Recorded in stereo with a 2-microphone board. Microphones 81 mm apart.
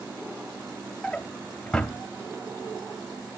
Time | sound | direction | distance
1.0 | a drawer | 10° left (ahead or behind) | 0.7 m